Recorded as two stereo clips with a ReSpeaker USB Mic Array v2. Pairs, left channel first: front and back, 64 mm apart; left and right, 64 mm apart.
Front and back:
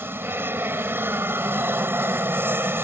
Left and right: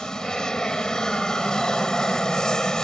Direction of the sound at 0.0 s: 165° left.